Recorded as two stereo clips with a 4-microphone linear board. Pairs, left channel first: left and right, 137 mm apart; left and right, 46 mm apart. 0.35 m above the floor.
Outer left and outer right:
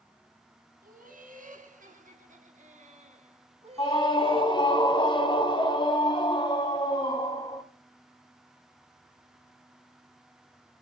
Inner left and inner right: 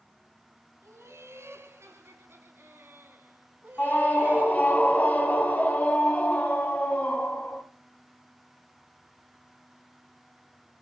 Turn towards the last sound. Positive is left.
turn(degrees=35)  # may be behind; listen again after turning